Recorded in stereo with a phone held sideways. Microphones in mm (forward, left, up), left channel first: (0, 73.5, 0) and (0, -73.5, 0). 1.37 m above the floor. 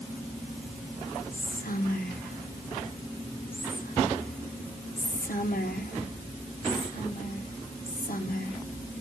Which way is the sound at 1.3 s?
85° left.